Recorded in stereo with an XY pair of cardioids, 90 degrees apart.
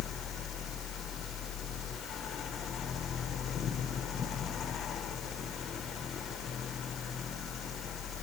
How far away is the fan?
About 1.0 m.